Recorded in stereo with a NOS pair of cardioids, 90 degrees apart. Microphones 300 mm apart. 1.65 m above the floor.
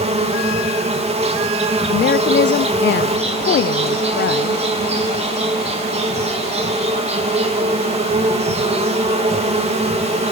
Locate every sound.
0.0 s an insect: 20° right, 3.5 m
1.9 s a woman speaking: 35° left, 0.6 m